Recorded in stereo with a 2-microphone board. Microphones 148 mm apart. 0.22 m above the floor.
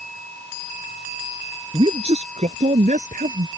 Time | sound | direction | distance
1.7 | a man speaking | 40° right (ahead or behind) | ?